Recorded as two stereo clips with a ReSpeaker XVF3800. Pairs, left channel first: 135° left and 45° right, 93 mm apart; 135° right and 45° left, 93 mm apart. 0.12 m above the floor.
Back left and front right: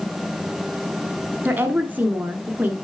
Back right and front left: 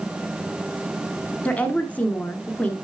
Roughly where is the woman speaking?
Right.